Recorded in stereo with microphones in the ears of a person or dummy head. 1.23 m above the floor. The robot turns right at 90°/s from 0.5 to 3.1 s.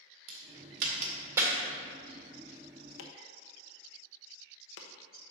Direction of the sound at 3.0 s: 70° left (ahead or behind).